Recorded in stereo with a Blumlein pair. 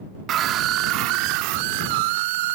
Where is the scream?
30° right; by 2.6 s 50° right.